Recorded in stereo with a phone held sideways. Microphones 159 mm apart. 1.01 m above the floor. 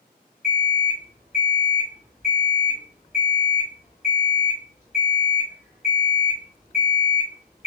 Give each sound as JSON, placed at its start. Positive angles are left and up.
{"t": 0.4, "sound": "an alarm clock", "side_deg": 45, "distance_m": 1.9}